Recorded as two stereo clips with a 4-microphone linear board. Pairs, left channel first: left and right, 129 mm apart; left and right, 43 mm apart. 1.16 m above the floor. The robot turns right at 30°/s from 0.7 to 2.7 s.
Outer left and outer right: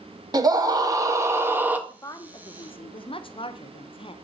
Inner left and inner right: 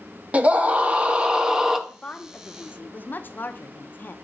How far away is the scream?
About 0.8 m.